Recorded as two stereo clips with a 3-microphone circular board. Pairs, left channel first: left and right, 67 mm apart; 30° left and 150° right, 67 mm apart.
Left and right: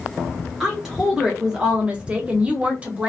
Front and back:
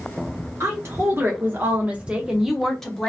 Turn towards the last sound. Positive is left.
turn(degrees=-40)